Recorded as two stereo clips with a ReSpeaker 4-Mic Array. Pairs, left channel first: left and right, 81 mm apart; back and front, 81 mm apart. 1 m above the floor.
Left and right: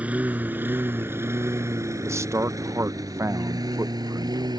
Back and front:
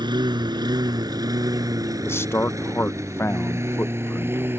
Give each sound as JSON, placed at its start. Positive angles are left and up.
{"t": 0.0, "sound": "a lawn mower", "azimuth_deg": -20}
{"t": 2.0, "sound": "a man speaking", "azimuth_deg": -130}